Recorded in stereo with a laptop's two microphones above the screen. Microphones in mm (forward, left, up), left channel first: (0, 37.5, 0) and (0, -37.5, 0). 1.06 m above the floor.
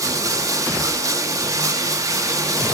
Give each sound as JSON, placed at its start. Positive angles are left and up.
{"t": 0.0, "sound": "running water", "side_deg": -50, "distance_m": 1.5}